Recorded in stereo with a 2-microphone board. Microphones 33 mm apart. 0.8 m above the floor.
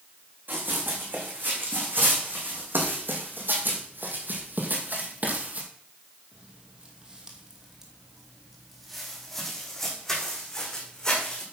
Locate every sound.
0.5 s running footsteps: 70° right (ahead or behind), 4 m; by 11.4 s 20° left (ahead or behind), 3.5 m